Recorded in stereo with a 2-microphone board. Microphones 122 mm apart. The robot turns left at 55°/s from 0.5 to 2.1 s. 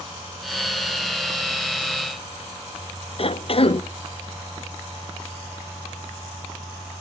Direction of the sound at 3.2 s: 50° left (ahead or behind).